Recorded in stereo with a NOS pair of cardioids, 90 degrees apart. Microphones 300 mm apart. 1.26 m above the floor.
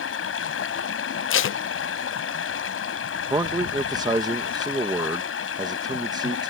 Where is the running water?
50° left.